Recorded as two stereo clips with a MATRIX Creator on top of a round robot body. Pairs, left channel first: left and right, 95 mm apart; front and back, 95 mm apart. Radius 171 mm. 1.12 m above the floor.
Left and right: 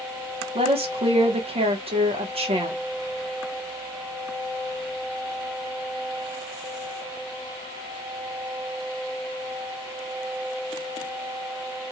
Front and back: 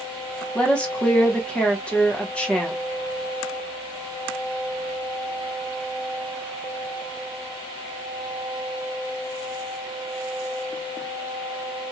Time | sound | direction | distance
0.6 | a woman speaking | 80° right | 1.3 m